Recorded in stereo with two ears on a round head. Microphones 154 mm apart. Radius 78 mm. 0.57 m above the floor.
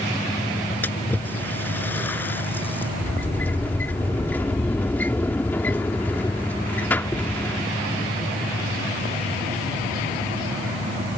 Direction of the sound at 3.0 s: 10° left (ahead or behind).